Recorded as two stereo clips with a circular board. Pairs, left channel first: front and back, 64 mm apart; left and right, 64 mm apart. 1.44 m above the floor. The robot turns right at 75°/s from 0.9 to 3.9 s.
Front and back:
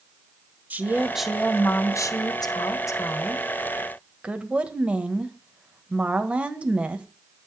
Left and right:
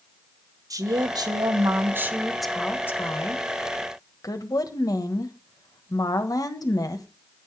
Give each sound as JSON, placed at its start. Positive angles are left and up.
{"t": 0.7, "sound": "a woman speaking", "azimuth_deg": -115, "distance_m": 1.2}